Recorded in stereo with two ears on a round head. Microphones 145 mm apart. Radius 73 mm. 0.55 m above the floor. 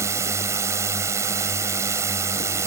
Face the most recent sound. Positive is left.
turn(degrees=-15)  # may be behind; listen again after turning